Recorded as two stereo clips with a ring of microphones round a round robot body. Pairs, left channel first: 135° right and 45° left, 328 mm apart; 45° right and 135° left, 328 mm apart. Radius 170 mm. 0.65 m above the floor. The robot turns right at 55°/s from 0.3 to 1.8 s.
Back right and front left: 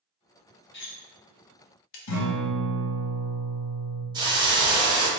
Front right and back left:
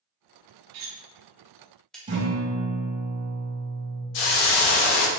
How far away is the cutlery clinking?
About 0.8 m.